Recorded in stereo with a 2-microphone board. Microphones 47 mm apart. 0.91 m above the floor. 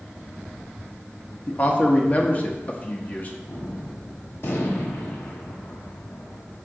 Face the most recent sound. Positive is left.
turn(degrees=60)  # may be behind; listen again after turning